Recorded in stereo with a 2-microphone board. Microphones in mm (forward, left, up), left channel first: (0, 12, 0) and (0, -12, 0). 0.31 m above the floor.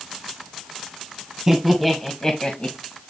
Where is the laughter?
15° right (ahead or behind), 1.8 m; by 2.8 s 50° left (ahead or behind), 1.8 m.